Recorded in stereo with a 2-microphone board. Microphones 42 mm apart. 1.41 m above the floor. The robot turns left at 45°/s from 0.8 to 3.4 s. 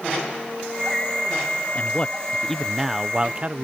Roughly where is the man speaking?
Ahead left.